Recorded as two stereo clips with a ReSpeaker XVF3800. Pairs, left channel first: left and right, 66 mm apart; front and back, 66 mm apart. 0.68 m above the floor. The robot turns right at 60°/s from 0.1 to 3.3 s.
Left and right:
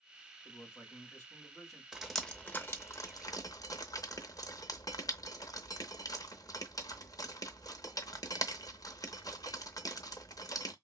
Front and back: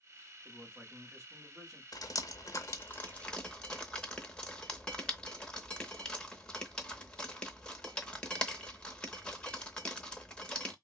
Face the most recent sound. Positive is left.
turn(degrees=75)